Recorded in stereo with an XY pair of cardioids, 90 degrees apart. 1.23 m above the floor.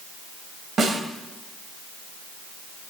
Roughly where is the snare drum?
Ahead right.